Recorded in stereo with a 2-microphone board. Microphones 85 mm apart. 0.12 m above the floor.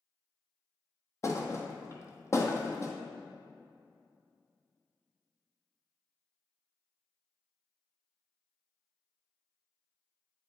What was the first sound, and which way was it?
A thud, 35° left (ahead or behind).